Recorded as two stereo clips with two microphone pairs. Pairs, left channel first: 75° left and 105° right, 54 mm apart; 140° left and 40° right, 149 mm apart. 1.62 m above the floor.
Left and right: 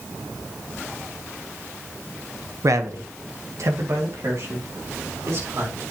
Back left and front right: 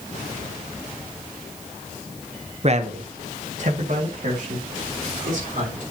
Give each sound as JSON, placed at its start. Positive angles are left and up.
{"t": 2.6, "sound": "a man speaking", "azimuth_deg": -85, "distance_m": 0.9}